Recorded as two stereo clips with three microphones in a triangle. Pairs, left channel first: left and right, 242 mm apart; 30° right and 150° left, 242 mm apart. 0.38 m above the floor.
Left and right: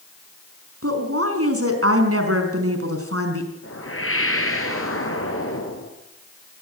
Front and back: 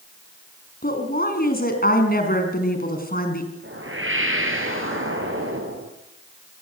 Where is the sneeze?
I don't hear a sneeze.